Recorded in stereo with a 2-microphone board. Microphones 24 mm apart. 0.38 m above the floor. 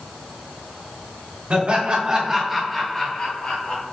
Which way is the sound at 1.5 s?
50° right (ahead or behind).